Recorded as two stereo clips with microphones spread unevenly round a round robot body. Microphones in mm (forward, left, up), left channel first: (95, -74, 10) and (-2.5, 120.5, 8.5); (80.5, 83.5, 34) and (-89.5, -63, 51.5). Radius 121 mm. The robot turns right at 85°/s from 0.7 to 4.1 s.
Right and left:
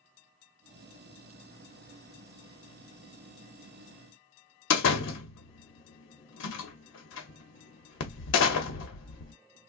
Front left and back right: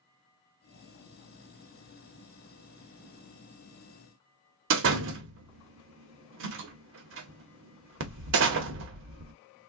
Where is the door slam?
105° right, 0.8 m.